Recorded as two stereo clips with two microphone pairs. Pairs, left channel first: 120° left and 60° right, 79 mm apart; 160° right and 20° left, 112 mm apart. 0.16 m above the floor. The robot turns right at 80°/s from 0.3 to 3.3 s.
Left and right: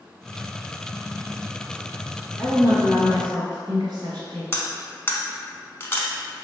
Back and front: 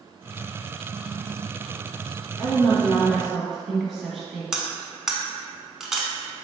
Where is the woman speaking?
140° right, 1.9 m; by 4.4 s 70° right, 1.9 m.